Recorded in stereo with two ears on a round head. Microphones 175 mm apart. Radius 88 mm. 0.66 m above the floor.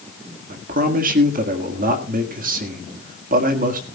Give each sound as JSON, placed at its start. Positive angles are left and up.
{"t": 0.5, "sound": "a man speaking", "side_deg": -45, "distance_m": 1.6}